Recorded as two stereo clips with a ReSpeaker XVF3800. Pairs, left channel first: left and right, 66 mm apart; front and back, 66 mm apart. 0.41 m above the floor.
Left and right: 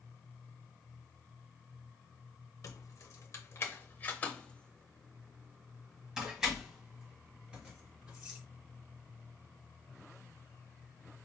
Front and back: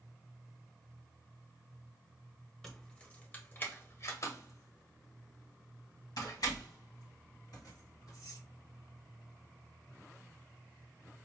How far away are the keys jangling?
About 1.1 m.